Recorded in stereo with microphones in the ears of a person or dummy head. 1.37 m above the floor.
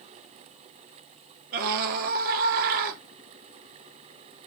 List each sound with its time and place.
1.5 s a scream: 45° right (ahead or behind), 1.4 m